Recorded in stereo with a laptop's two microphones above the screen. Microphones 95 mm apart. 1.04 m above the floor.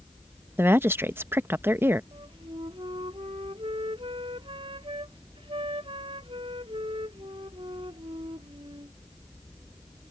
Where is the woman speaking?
25° right (ahead or behind).